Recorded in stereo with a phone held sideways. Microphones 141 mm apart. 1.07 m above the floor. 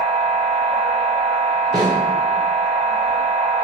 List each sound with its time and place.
0.0 s a machine running: 40° left (ahead or behind), 0.8 m
1.7 s a snare drum: 40° left (ahead or behind), 0.9 m